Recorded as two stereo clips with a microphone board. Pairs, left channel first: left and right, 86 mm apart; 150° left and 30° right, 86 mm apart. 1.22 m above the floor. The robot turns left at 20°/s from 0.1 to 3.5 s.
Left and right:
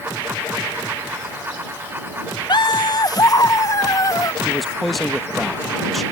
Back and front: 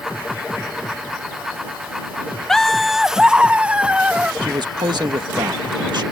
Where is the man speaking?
Straight ahead.